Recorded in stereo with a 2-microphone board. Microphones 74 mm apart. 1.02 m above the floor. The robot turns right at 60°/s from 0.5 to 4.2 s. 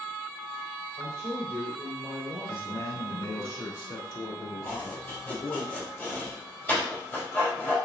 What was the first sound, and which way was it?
A man speaking, 165° right.